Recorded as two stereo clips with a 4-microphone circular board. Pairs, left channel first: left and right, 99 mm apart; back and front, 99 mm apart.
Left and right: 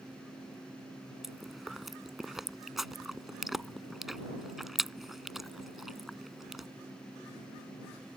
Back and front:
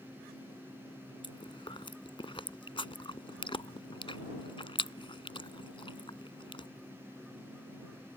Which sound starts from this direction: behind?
Chewing, at 1.2 s.